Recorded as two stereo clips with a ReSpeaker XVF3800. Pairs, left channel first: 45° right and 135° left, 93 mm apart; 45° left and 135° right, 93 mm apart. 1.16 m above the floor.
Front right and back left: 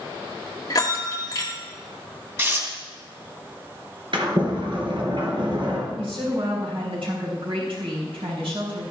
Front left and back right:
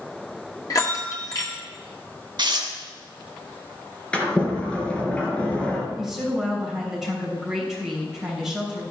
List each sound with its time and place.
0.7 s a bell: straight ahead, 1.9 m
2.4 s tearing paper: 165° right, 2.5 m
4.1 s a sliding door: 120° left, 3 m
6.0 s a woman speaking: 140° left, 5.5 m